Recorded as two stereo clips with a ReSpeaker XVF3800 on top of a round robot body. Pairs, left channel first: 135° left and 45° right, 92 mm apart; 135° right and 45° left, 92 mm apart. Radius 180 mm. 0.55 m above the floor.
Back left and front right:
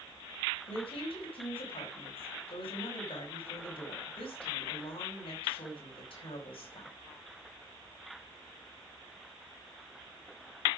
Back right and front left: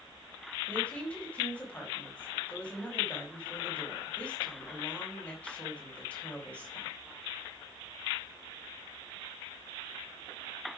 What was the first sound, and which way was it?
A woman speaking, 150° left.